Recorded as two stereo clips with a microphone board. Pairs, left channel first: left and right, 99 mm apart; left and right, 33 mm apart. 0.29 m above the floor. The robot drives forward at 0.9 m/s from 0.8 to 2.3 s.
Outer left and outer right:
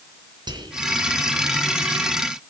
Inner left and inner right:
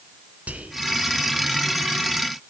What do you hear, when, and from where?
0.5 s whispering: 50° right (ahead or behind), 3 m